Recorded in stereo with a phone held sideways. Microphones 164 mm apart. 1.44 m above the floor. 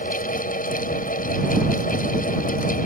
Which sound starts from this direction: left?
A fan, at 0.0 s.